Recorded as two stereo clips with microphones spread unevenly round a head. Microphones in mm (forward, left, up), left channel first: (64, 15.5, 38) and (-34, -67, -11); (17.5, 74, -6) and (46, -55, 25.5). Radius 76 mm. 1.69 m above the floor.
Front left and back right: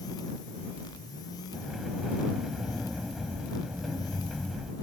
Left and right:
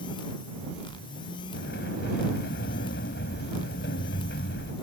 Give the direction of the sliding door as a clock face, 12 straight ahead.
8 o'clock.